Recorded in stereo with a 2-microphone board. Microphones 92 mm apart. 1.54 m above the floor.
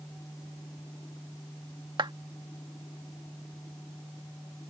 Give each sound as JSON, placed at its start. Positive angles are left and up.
{"t": 2.0, "sound": "a clap", "side_deg": -60}